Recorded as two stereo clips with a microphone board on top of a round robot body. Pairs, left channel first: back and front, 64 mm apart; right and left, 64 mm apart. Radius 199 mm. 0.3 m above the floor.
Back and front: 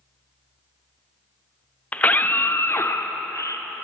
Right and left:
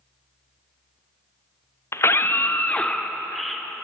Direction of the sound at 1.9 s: 120° right.